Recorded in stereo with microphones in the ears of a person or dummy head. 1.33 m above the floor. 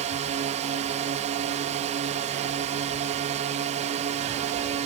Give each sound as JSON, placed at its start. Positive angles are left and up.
{"t": 0.0, "sound": "a drone", "side_deg": -40}